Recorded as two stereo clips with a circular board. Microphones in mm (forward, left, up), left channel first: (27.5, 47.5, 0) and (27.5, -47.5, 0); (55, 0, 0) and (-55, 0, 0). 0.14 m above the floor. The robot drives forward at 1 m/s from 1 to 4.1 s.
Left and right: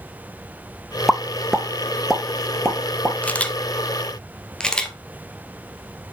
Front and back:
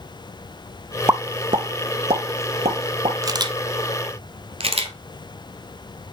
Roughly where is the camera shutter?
Behind left.